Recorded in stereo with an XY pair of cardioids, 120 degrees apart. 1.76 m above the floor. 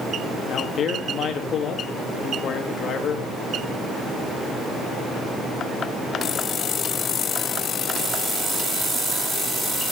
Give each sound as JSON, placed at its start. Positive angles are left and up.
{"t": 0.5, "sound": "a man speaking", "azimuth_deg": 50, "distance_m": 3.5}